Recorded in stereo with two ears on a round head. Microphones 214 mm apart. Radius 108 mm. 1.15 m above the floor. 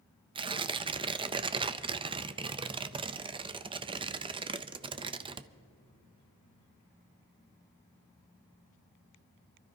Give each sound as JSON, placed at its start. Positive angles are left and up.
{"t": 0.3, "sound": "tearing paper", "side_deg": -20, "distance_m": 0.5}